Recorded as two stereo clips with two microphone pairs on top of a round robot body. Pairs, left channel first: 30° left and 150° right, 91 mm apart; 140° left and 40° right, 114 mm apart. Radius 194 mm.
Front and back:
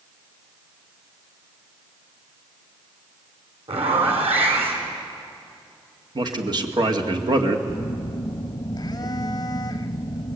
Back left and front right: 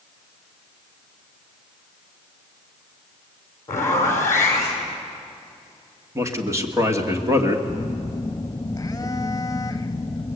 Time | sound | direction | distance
3.7 | a zipper | 155° right | 4.5 m
6.2 | a man speaking | 105° right | 2 m
7.7 | a phone buzzing | 75° left | 0.6 m